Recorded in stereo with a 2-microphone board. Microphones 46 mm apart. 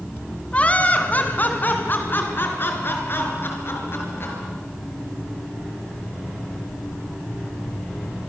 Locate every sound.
0.5 s laughter: 25° left (ahead or behind), 2.5 m; by 4.3 s 55° left (ahead or behind), 6 m